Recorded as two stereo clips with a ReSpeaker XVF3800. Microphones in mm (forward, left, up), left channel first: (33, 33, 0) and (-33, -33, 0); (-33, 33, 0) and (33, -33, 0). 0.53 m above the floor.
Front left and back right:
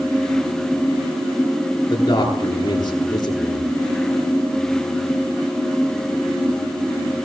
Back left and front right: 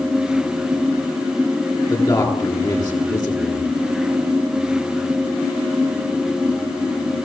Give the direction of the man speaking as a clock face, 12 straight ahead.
9 o'clock.